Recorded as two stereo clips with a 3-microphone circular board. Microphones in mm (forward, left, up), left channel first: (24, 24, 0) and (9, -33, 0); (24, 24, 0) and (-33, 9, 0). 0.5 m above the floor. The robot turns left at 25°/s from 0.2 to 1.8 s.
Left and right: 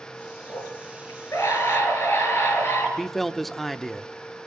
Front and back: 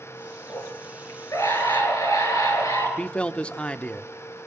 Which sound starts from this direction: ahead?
A man speaking, at 3.0 s.